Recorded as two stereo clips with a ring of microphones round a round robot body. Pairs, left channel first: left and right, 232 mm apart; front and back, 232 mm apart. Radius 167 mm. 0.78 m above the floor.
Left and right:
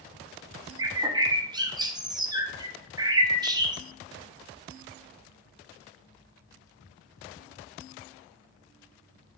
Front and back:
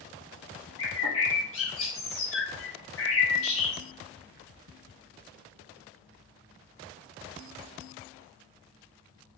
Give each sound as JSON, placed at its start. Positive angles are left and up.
{"t": 0.8, "sound": "a bird", "azimuth_deg": -20, "distance_m": 0.9}